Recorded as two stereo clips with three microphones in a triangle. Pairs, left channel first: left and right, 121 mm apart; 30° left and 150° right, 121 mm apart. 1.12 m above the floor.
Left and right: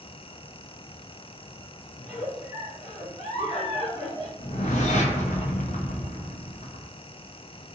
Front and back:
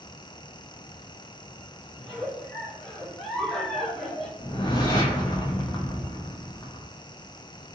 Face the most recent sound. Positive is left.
turn(degrees=85)